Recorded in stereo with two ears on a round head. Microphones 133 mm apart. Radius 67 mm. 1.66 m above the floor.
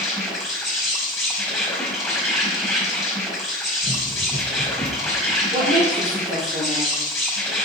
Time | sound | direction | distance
0.0 | an insect | centre (ahead or behind) | 4.5 m
3.8 | running footsteps | 45° right (ahead or behind) | 2.5 m
5.5 | a woman speaking | 45° right (ahead or behind) | 3.5 m